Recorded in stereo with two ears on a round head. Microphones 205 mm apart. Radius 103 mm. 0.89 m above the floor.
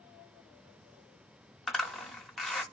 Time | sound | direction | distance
1.7 | a zipper | centre (ahead or behind) | 0.8 m